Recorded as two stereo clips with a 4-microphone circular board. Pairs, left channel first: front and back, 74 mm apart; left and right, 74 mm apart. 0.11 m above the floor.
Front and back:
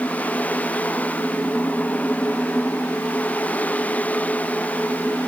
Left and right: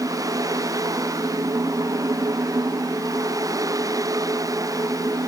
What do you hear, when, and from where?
Only background noise.